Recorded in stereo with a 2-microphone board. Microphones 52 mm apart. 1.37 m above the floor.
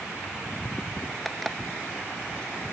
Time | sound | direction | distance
1.2 | an alarm clock | 5° left (ahead or behind) | ?